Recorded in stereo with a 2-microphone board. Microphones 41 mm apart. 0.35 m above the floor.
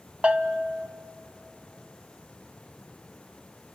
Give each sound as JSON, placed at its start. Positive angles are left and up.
{"t": 0.2, "sound": "a bell", "side_deg": -30, "distance_m": 0.7}